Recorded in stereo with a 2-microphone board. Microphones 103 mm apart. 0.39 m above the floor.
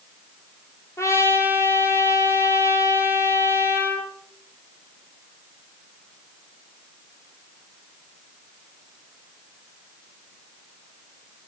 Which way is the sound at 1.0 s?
25° left (ahead or behind).